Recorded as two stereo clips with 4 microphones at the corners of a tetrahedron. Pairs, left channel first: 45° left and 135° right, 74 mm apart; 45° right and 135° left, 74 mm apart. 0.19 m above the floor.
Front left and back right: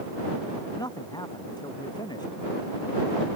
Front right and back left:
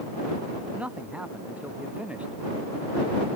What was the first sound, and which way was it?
A man speaking, 65° left.